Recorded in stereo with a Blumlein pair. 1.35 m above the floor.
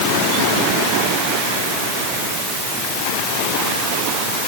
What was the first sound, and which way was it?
Only background noise.